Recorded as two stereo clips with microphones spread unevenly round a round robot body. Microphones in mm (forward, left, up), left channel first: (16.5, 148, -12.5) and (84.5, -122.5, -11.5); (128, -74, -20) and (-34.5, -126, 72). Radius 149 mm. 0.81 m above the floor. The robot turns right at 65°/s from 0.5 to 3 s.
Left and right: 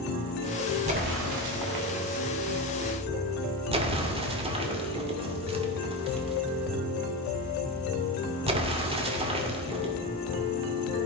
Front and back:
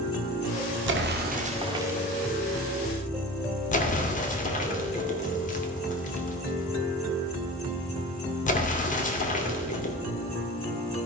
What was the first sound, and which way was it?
An explosion, 145° right.